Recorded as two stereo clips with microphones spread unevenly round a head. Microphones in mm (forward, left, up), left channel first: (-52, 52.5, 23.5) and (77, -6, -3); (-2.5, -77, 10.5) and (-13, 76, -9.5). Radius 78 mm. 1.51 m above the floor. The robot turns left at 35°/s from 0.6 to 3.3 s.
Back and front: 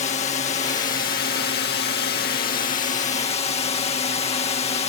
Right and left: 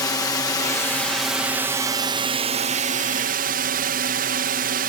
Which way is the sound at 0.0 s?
155° right.